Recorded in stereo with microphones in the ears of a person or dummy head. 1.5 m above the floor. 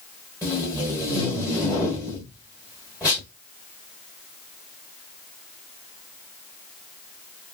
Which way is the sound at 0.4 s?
15° right (ahead or behind).